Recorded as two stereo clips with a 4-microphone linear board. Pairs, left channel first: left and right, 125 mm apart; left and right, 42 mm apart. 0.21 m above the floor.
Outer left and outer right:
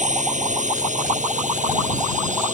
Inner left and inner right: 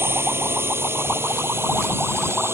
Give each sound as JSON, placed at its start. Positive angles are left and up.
{"t": 0.0, "sound": "a drone", "side_deg": -75}